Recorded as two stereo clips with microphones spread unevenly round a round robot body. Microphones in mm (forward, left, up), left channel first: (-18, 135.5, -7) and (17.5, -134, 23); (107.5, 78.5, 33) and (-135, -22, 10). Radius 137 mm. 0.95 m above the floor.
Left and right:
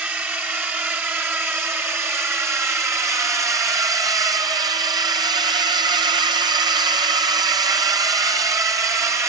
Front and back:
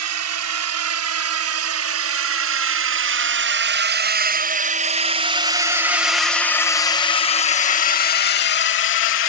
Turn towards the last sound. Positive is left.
turn(degrees=0)